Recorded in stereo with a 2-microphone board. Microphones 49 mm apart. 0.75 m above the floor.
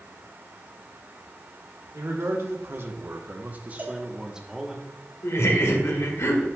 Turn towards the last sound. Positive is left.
turn(degrees=75)  # may be behind; listen again after turning